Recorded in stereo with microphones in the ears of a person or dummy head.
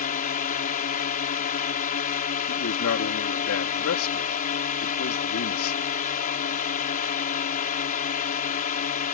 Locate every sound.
0.0 s a drone: 40° left (ahead or behind)
2.5 s a man speaking: 75° left (ahead or behind)